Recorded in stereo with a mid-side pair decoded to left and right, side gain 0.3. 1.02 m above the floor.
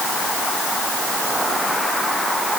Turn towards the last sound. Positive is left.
No sound to turn to.